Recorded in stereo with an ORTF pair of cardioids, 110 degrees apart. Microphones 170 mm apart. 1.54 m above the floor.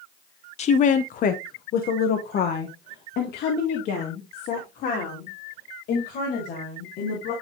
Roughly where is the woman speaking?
Ahead left.